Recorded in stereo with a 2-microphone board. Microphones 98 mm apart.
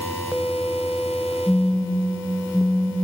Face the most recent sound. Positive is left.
turn(degrees=5)  # may be behind; listen again after turning